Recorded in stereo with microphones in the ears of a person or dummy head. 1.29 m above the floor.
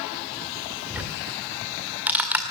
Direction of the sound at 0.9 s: 10° right (ahead or behind).